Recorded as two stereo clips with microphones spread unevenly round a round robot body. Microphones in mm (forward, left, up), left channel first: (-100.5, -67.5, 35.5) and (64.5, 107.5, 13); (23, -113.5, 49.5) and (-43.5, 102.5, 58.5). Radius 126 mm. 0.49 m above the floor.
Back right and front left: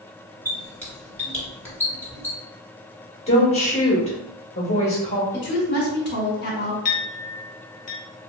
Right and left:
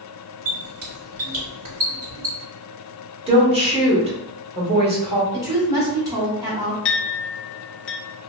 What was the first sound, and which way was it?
A squeak, 145° left.